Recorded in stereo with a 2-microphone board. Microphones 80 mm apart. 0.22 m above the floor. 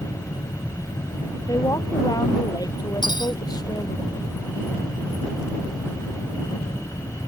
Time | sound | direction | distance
1.5 | a woman speaking | 45° left (ahead or behind) | ?
3.0 | cutlery clinking | 70° left (ahead or behind) | ?